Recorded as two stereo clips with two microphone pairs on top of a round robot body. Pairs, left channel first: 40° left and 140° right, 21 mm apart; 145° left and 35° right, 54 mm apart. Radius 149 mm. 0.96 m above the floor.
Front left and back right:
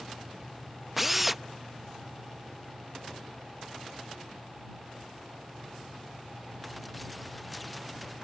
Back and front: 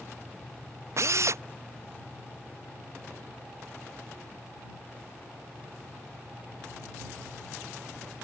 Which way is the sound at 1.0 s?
60° right.